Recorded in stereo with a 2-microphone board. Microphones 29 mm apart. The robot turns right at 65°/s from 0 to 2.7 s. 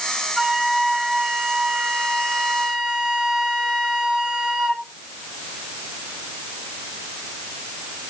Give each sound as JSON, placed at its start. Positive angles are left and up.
{"t": 0.4, "sound": "a flute", "azimuth_deg": -170, "distance_m": 0.7}